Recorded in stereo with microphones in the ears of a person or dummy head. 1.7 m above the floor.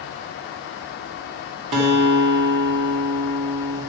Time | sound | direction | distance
1.7 | a guitar | 40° right (ahead or behind) | 2.0 m